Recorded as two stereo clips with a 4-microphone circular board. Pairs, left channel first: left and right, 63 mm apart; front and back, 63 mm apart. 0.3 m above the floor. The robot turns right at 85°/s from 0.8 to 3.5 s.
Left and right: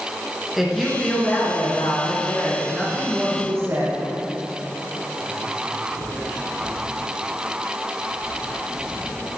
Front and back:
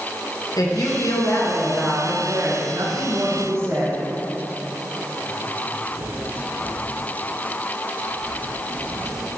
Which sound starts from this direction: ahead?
A woman speaking, at 0.6 s.